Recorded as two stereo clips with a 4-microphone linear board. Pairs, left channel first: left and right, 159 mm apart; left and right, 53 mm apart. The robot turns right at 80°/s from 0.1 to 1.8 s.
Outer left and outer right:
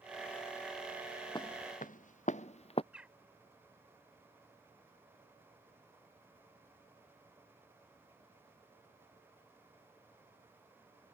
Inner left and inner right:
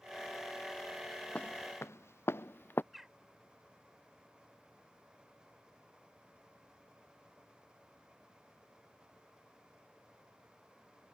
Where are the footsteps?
25° left (ahead or behind); by 2.8 s 40° left (ahead or behind).